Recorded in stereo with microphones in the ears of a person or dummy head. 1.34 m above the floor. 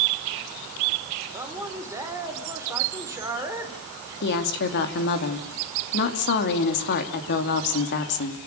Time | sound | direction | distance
1.3 | a man speaking | 15° right (ahead or behind) | 4 m
4.2 | a woman speaking | 55° left (ahead or behind) | 3 m